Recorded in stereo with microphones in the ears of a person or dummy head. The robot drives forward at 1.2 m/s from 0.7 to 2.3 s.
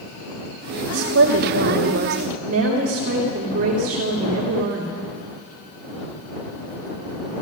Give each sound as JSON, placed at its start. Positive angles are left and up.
{"t": 0.9, "sound": "a woman speaking", "side_deg": -90, "distance_m": 1.8}